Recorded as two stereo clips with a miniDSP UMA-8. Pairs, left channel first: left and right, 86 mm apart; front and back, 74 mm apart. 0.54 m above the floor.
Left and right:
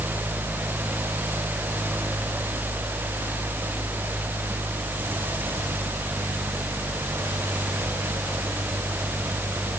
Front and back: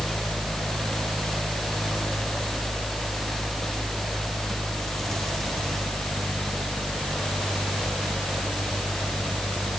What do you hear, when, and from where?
Only background noise.